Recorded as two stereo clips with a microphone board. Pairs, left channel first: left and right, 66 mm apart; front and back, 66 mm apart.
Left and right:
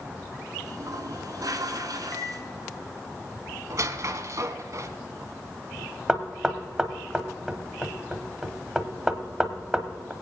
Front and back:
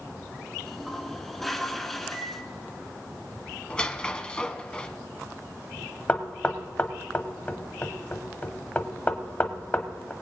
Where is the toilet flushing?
85° right, 1.3 m.